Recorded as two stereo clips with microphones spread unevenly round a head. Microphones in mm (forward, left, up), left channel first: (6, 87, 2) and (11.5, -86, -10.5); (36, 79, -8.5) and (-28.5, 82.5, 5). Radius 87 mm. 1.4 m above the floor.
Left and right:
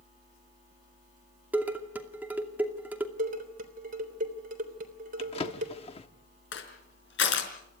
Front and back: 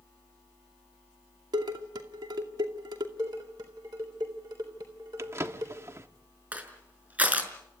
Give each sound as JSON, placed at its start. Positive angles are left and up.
{"t": 1.5, "sound": "dishes clattering", "azimuth_deg": -170, "distance_m": 2.5}
{"t": 3.2, "sound": "dishes clattering", "azimuth_deg": -135, "distance_m": 3.5}
{"t": 5.2, "sound": "a drawer", "azimuth_deg": 145, "distance_m": 1.5}
{"t": 6.5, "sound": "crushing", "azimuth_deg": 115, "distance_m": 4.5}